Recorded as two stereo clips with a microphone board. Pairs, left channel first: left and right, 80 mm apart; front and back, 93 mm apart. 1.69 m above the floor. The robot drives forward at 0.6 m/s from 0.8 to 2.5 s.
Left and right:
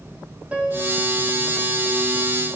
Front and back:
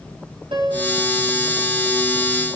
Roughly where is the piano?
Behind.